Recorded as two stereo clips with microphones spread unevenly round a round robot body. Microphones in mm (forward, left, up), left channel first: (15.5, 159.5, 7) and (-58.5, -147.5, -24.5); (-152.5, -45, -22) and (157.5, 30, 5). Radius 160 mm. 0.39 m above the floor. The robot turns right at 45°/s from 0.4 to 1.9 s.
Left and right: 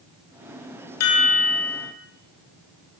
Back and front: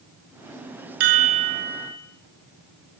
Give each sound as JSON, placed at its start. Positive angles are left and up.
{"t": 1.0, "sound": "a chime", "azimuth_deg": 30, "distance_m": 5.0}